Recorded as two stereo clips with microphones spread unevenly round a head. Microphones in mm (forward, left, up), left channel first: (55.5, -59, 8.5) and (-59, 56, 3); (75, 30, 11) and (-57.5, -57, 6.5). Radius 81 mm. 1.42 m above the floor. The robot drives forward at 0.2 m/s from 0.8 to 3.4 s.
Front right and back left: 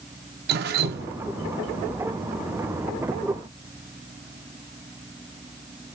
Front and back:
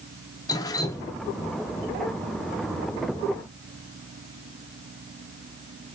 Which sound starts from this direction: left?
Dripping, at 0.5 s.